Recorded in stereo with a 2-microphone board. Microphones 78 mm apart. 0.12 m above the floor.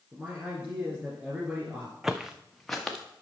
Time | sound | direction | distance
0.1 | a man speaking | 15° right (ahead or behind) | 1.9 m
2.0 | footsteps | 5° right (ahead or behind) | 0.6 m